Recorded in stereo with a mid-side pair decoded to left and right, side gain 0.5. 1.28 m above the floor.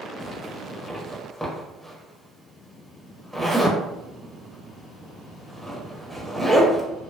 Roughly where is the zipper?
Ahead.